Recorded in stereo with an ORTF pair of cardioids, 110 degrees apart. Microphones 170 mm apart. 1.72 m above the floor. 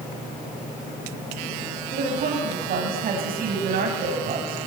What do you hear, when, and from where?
1.9 s a woman speaking: 60° right, 9.5 m